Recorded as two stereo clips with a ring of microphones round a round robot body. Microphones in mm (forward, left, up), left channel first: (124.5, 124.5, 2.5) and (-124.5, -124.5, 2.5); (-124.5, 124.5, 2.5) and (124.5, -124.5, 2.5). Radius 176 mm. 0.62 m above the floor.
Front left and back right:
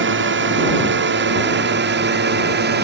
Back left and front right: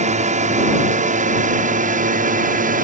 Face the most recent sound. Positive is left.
turn(degrees=-95)